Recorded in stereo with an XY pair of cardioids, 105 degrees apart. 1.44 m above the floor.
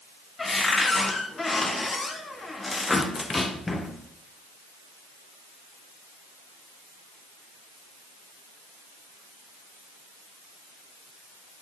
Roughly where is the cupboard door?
Ahead.